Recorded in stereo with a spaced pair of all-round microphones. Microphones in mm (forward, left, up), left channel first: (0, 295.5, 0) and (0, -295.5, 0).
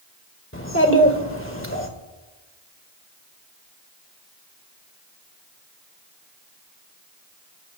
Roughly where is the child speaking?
Left.